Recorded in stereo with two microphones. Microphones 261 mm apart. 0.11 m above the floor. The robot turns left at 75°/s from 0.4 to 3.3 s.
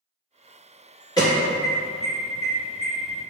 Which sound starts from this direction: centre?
An alarm, at 1.2 s.